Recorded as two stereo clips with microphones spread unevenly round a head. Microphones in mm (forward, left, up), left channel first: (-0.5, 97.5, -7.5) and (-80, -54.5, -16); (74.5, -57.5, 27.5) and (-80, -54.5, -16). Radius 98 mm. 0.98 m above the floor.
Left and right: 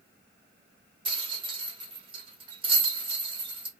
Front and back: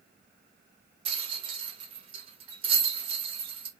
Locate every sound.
1.1 s a rattle: 165° right, 1.1 m